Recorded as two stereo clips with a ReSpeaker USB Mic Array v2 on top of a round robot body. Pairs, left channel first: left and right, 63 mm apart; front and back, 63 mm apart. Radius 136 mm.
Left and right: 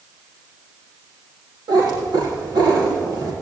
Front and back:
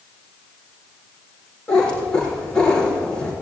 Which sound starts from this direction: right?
A cat meowing, at 1.7 s.